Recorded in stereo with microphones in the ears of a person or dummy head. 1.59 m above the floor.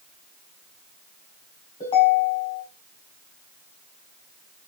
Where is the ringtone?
30° left (ahead or behind), 4 m.